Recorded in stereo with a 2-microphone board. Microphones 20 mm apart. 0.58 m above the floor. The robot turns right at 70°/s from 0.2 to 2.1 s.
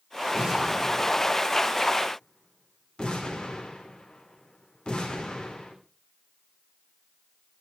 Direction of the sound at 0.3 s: 40° right (ahead or behind).